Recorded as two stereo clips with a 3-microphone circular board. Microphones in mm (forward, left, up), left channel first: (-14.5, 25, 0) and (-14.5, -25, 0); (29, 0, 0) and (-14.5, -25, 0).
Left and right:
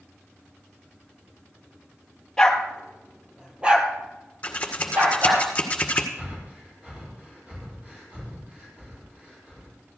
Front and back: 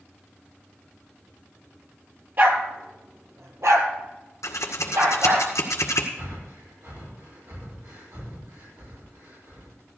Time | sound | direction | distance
2.4 | a dog barking | 170° left | 1.5 m
4.4 | scissors | 25° left | 2.0 m
6.2 | breathing | 155° right | 5 m